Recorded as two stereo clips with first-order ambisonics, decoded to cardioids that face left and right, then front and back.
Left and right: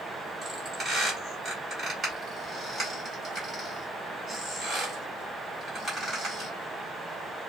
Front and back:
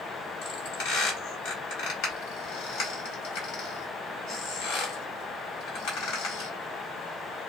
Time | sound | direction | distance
0.4 | a squeak | 15° right | 1.7 m